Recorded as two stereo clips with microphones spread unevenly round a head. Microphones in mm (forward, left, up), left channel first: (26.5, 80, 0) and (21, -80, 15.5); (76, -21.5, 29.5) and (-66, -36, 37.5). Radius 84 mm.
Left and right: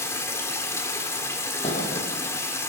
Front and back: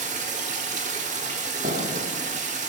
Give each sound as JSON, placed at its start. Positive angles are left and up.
{"t": 0.0, "sound": "running water", "azimuth_deg": 165, "distance_m": 1.4}
{"t": 1.6, "sound": "a thud", "azimuth_deg": 145, "distance_m": 4.0}